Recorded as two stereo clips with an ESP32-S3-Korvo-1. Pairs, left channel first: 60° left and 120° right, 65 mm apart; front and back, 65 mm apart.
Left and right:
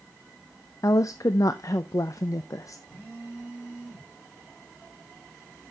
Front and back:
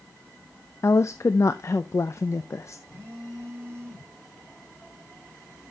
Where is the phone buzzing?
125° left, 5 m.